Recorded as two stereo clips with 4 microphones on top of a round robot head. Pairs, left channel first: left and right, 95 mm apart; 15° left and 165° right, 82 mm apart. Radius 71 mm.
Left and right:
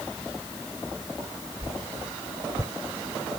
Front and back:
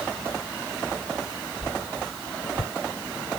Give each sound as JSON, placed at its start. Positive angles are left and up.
{"t": 1.6, "sound": "a whoosh", "azimuth_deg": -35}